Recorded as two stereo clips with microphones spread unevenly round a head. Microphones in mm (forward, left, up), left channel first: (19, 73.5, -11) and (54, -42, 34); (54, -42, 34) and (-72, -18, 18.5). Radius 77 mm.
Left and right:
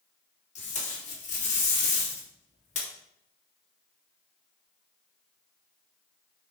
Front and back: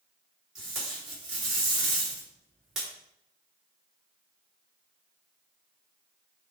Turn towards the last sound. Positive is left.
turn(degrees=80)